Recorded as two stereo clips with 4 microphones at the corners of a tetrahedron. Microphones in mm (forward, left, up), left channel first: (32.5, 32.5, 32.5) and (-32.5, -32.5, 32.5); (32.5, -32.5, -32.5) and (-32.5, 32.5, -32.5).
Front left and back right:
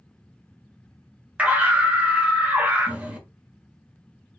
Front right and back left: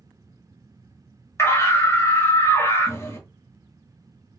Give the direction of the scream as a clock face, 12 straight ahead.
2 o'clock.